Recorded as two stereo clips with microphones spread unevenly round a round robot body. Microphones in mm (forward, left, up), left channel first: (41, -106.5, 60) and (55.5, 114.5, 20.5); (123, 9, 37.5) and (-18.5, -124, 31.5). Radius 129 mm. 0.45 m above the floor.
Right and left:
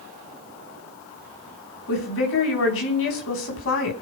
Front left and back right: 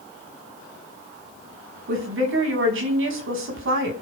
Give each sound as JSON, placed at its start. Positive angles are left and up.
{"t": 1.9, "sound": "a woman speaking", "azimuth_deg": -130, "distance_m": 4.5}